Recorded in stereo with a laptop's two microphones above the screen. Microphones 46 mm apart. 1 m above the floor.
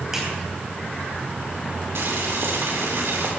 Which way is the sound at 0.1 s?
10° right (ahead or behind).